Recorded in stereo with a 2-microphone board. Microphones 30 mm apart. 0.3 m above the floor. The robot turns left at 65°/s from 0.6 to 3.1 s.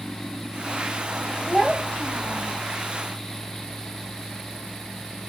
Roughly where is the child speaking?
Behind.